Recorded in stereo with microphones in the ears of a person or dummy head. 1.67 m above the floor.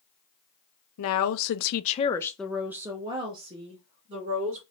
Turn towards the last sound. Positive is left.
turn(degrees=-40)  # may be behind; listen again after turning